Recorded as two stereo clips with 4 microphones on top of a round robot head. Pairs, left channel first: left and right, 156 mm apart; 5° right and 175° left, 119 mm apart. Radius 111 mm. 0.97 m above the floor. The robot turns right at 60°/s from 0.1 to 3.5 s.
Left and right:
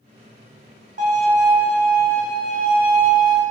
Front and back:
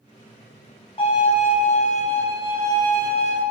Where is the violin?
50° right, 2.5 m; by 3.4 s 95° left, 2.5 m.